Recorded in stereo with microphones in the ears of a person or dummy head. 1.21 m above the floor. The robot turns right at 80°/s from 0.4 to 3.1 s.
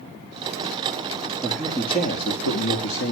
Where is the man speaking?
10° right, 2 m; by 3.1 s 125° left, 2 m.